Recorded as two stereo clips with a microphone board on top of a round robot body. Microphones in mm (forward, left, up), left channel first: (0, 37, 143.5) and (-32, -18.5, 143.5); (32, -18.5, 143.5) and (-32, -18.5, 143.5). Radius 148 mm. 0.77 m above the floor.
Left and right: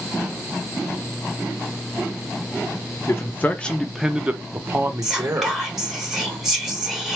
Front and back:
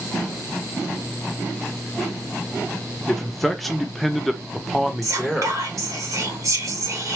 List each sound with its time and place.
3.1 s a man speaking: 85° left, 1.0 m; by 5.6 s 95° right, 1.5 m
5.0 s whispering: 155° left, 2.5 m